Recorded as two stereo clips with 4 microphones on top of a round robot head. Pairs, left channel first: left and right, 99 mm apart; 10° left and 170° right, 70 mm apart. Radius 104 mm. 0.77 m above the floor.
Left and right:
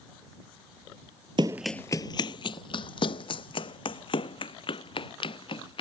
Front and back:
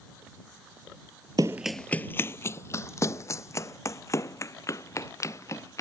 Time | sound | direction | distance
1.4 | running footsteps | 130° right | ?